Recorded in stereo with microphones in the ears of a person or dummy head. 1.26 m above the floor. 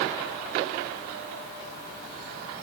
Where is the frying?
I don't hear frying.